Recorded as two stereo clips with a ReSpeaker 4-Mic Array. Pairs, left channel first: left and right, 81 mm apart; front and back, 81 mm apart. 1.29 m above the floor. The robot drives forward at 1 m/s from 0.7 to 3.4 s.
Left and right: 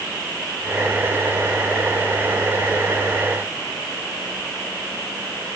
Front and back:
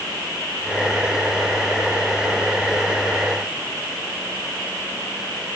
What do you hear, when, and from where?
Only background noise.